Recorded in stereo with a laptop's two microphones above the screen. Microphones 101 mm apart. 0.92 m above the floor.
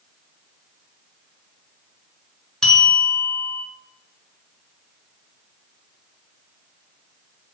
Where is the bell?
5° left (ahead or behind), 2.5 m.